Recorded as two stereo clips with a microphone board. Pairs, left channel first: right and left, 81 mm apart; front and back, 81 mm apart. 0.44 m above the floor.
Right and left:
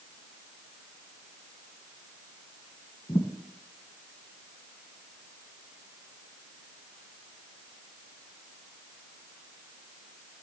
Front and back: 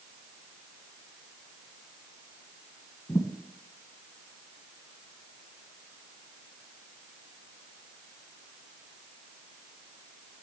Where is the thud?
60° right, 1.8 m.